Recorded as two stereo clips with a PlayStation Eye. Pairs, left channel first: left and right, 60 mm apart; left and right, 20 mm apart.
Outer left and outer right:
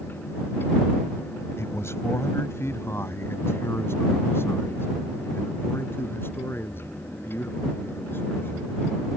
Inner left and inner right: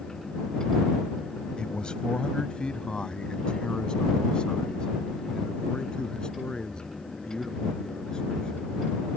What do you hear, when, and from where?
1.6 s a man speaking: 50° left (ahead or behind); by 8.8 s 35° left (ahead or behind)